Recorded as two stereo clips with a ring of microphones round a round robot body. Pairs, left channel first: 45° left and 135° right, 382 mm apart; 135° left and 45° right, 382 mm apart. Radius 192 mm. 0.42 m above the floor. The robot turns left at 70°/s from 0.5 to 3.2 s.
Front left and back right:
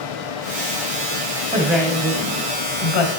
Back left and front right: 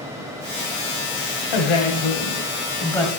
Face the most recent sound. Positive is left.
turn(degrees=35)